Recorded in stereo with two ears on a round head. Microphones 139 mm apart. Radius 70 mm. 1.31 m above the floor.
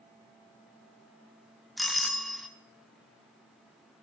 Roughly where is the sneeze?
I don't hear a sneeze.